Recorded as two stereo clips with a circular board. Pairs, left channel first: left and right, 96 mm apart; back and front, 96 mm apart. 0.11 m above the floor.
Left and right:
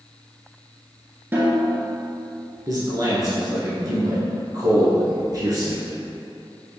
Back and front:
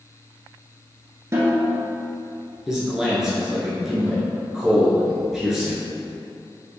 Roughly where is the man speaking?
Right.